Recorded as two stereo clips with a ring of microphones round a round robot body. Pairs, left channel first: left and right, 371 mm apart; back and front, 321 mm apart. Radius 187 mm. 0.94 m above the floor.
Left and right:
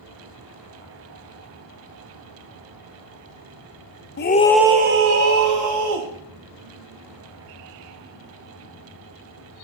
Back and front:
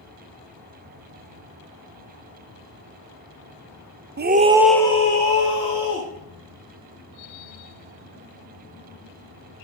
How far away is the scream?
About 0.8 m.